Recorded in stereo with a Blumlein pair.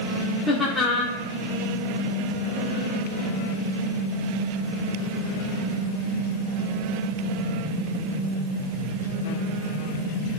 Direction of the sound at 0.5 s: 5° left.